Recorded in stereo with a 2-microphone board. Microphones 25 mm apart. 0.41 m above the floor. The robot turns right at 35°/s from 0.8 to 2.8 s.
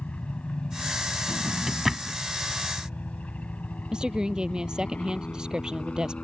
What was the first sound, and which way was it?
A helicopter, 60° left (ahead or behind).